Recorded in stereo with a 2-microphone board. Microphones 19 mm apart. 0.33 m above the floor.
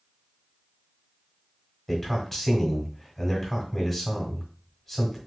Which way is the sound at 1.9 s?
5° left (ahead or behind).